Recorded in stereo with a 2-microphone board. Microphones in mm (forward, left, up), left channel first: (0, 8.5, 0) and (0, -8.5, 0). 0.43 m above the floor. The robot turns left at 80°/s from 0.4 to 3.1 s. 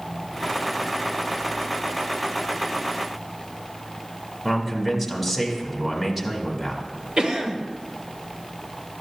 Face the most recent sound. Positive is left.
turn(degrees=-55)  # may be behind; listen again after turning